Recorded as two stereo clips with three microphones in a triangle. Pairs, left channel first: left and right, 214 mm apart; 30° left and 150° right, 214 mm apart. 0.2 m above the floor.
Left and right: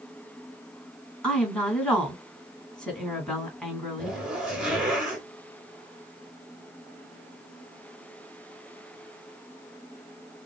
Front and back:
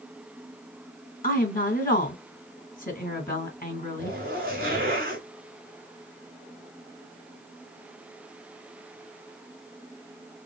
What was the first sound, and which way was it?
A woman speaking, 5° left.